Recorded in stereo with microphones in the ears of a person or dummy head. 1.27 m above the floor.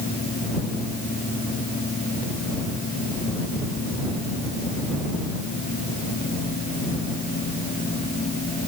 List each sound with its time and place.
Only background noise.